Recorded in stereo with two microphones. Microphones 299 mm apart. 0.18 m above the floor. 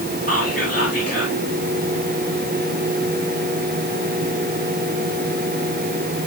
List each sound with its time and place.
0.3 s whispering: 35° left (ahead or behind), 3 m